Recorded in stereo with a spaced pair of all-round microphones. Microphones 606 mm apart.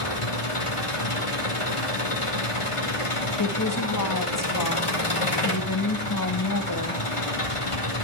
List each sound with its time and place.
0.0 s an engine running: 55° left (ahead or behind), 2.5 m
3.4 s a woman speaking: 30° left (ahead or behind), 1.8 m